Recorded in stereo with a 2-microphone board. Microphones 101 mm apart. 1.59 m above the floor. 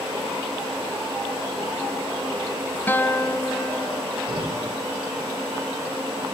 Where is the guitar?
20° left (ahead or behind), 1.0 m.